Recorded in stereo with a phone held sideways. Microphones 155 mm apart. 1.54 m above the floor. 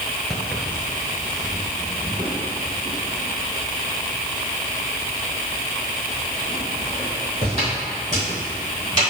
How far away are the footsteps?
About 1.6 m.